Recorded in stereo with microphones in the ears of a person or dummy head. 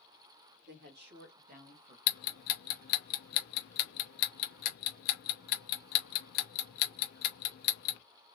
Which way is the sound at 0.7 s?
60° right (ahead or behind).